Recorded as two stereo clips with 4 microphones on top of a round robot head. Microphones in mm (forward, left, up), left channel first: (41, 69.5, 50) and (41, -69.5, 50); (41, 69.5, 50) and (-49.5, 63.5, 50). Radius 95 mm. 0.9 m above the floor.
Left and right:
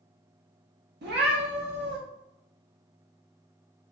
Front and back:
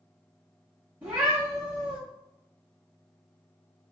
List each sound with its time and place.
1.0 s a cat meowing: 100° right, 0.6 m